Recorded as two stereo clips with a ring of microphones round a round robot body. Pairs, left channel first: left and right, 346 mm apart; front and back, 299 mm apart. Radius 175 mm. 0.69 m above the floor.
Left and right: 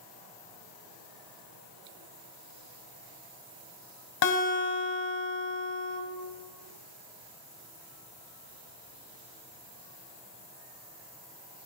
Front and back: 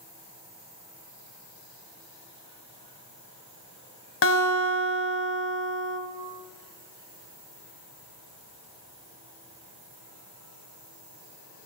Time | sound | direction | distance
4.2 | a guitar | 45° left | 1.7 m